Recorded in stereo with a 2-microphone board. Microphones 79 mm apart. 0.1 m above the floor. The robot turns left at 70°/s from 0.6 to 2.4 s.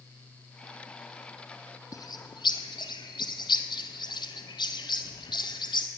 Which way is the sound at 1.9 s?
45° left (ahead or behind).